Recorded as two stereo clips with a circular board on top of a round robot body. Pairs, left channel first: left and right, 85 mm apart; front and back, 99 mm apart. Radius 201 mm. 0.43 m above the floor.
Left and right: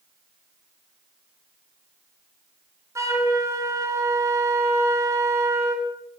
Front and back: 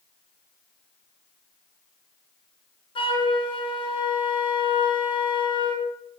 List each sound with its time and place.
3.0 s a flute: 35° right, 3 m